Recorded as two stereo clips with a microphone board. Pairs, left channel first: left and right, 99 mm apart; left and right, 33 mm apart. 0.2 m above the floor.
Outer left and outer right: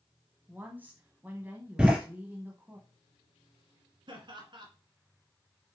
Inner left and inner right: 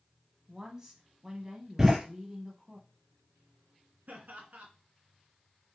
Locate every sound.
0.5 s a woman speaking: 20° right (ahead or behind), 1.1 m
1.8 s a door slam: 10° right (ahead or behind), 3 m
4.1 s laughter: 55° right (ahead or behind), 2 m